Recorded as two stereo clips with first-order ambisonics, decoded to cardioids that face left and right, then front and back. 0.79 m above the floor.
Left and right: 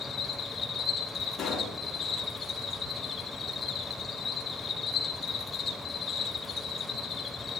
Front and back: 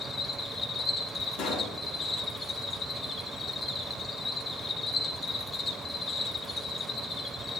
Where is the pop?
20° left, 3 m.